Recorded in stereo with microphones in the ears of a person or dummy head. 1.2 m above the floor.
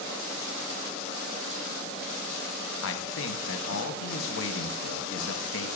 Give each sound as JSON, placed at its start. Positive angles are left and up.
{"t": 2.8, "sound": "a man speaking", "side_deg": 65, "distance_m": 0.7}